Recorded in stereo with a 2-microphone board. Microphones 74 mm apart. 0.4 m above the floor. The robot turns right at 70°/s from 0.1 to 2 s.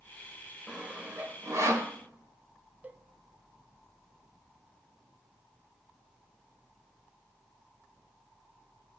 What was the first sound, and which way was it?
Sawing, 10° right (ahead or behind).